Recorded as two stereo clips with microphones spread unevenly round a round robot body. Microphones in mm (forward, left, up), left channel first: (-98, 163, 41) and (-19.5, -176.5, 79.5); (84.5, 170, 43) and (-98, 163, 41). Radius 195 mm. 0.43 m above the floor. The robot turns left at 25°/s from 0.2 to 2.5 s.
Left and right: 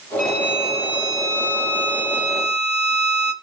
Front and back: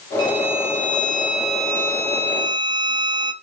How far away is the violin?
About 2.0 m.